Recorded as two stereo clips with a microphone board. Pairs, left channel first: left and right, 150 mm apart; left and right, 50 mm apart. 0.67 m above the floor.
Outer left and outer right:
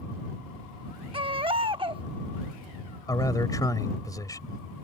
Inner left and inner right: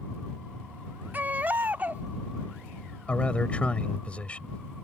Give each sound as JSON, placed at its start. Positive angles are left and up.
{"t": 1.1, "sound": "a baby crying", "side_deg": -35}
{"t": 3.1, "sound": "a man speaking", "side_deg": 25}